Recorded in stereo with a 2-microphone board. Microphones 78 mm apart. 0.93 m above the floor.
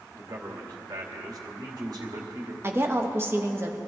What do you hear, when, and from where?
0.1 s a man speaking: 60° right (ahead or behind), 2.5 m
2.6 s a woman speaking: 30° right (ahead or behind), 1.3 m